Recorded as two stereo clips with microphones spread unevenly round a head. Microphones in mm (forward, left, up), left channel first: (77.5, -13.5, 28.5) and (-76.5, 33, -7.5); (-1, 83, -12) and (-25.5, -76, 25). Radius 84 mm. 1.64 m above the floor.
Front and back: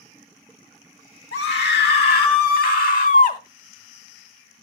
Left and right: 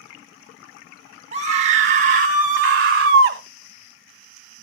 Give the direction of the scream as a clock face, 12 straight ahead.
2 o'clock.